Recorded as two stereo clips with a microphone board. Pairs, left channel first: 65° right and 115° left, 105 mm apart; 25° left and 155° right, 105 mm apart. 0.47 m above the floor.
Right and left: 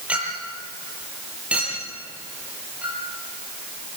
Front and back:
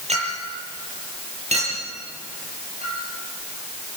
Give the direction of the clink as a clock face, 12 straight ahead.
6 o'clock.